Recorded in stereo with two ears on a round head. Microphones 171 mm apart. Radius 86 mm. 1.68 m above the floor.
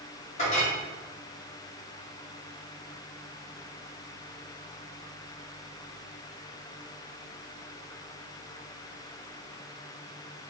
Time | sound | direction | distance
0.4 | a clink | 35° left (ahead or behind) | 1.3 m